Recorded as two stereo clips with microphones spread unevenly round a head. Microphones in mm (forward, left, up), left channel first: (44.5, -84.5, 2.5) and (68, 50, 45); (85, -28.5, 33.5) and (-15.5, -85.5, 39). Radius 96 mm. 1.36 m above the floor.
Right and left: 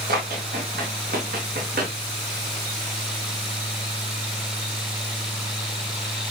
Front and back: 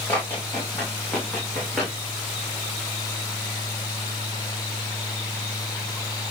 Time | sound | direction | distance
0.1 | running footsteps | 110° left | 6.5 m